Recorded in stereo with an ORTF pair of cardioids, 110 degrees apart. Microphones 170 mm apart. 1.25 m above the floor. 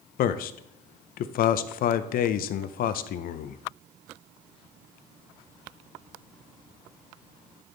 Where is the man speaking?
65° left, 0.6 m.